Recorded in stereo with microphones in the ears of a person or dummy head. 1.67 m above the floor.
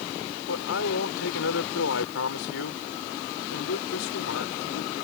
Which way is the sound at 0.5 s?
75° left (ahead or behind).